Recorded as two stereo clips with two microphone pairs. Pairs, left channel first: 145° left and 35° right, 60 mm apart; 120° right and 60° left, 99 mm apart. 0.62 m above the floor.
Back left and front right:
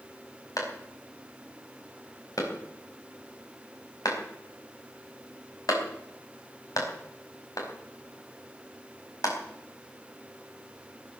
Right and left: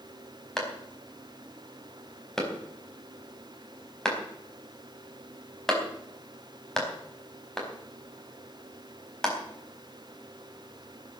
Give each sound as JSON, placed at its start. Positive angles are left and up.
{"t": 0.6, "sound": "a clap", "azimuth_deg": 155, "distance_m": 4.5}